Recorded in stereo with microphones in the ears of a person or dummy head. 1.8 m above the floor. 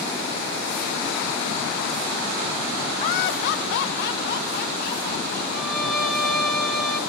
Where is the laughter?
30° left (ahead or behind), 0.8 m; by 5.4 s 55° left (ahead or behind), 3 m.